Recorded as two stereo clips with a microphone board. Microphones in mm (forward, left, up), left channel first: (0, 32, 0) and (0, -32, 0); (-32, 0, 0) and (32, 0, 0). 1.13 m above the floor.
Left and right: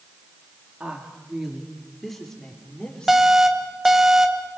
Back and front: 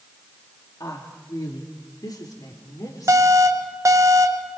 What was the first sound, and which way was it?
A woman speaking, 160° right.